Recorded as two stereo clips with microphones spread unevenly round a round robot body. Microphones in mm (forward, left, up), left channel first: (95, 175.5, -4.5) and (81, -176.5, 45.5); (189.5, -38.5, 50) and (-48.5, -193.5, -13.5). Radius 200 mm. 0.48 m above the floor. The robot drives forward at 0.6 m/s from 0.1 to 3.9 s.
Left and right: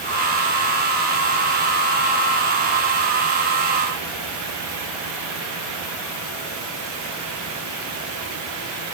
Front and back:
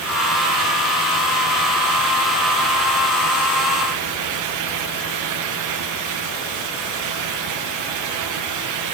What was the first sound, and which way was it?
Only background noise.